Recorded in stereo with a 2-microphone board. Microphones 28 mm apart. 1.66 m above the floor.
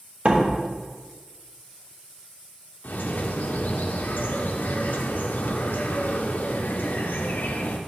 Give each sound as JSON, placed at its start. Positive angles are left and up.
{"t": 0.2, "sound": "a door slam", "side_deg": -45, "distance_m": 1.2}
{"t": 2.8, "sound": "a bird", "side_deg": 85, "distance_m": 0.6}